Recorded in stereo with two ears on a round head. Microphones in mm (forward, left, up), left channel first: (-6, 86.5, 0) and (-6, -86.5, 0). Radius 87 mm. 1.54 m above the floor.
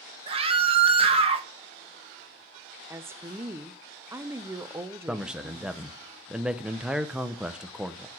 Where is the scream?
30° right (ahead or behind), 1.5 m.